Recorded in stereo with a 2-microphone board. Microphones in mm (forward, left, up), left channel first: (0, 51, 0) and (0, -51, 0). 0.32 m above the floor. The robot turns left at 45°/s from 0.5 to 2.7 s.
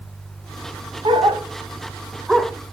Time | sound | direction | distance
1.1 | a dog barking | 60° right (ahead or behind) | 1.2 m